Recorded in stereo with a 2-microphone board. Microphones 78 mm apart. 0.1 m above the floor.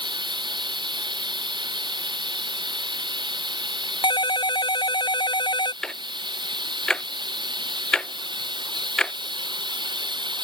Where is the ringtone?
75° left (ahead or behind).